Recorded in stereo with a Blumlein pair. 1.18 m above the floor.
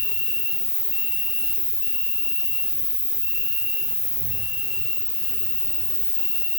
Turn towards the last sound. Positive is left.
turn(degrees=70)